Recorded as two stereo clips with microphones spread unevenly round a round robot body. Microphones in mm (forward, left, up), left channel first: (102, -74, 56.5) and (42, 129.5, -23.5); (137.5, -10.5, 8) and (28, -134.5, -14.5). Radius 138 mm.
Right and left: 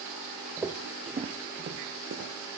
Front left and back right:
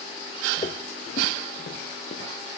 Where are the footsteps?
10° left, 0.9 m; by 2.3 s 75° left, 1.1 m.